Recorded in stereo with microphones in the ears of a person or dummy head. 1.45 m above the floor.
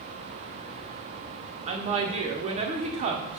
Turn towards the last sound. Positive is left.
turn(degrees=-35)  # may be behind; listen again after turning